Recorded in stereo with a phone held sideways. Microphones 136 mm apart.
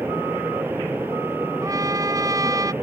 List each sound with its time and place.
0.0 s a fan: 15° right (ahead or behind)
1.6 s a trumpet: 25° right (ahead or behind)